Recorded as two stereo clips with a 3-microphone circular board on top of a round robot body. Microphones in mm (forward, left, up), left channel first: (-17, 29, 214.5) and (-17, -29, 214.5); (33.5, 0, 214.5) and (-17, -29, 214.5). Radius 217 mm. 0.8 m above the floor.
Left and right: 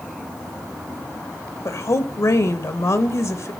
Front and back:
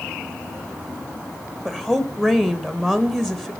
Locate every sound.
1.6 s a woman speaking: 115° left, 1.6 m